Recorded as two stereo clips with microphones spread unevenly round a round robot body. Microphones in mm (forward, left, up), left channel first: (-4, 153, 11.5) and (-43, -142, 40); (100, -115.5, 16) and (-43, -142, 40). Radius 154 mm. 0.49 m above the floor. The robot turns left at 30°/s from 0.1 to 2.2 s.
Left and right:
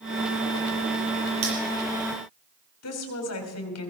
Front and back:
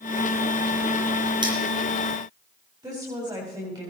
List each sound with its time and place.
1.4 s cutlery clinking: 110° right, 8.5 m; by 1.5 s 115° right, 8.5 m
2.8 s a woman speaking: 115° left, 3.5 m